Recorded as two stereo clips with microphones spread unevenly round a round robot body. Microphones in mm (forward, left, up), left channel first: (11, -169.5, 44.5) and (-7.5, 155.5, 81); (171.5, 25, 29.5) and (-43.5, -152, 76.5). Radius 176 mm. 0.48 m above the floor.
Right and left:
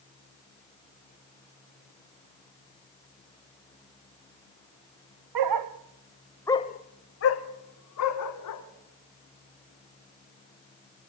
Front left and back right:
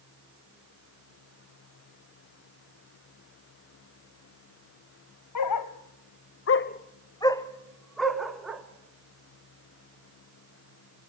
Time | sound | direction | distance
5.3 | a dog barking | 70° left | 0.9 m